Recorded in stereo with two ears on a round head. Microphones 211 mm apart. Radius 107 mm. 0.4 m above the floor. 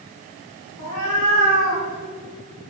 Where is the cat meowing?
65° left (ahead or behind), 4 m; by 1.8 s 60° left (ahead or behind), 3.5 m.